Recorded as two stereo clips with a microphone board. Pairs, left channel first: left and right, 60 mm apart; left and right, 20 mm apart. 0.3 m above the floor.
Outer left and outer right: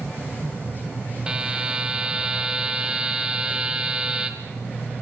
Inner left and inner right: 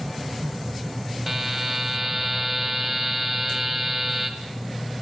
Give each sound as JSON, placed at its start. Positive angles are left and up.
{"t": 1.3, "sound": "a buzzer", "side_deg": -15, "distance_m": 1.8}